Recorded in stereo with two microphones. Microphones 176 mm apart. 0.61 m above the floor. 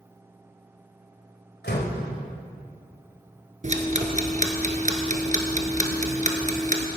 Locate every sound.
1.6 s a door slam: 75° left (ahead or behind), 2 m
3.6 s ticking: 45° right (ahead or behind), 1.4 m